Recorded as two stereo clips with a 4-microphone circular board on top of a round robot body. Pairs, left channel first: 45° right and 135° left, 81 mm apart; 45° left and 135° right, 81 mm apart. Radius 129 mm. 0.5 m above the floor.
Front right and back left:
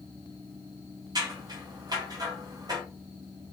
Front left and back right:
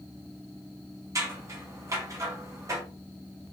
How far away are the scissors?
About 1.7 m.